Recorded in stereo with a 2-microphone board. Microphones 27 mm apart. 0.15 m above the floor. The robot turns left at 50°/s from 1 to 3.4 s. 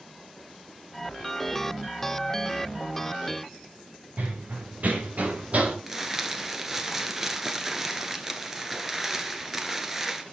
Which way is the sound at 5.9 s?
10° right (ahead or behind).